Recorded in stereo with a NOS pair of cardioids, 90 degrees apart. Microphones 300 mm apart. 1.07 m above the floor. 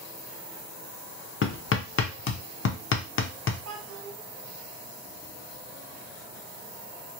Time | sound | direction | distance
1.4 | hammering | 40° left | 0.6 m
3.6 | a child speaking | 60° right | 1.5 m